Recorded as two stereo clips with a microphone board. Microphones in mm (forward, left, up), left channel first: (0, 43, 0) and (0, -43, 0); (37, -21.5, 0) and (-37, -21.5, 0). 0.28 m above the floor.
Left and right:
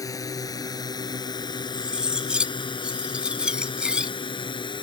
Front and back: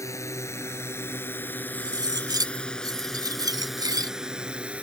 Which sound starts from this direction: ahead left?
A drone, at 0.0 s.